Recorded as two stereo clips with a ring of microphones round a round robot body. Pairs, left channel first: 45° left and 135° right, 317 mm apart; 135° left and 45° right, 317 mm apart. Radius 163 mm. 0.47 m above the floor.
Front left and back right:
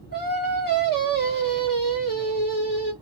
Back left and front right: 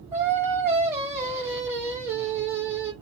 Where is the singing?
30° left, 1.4 m.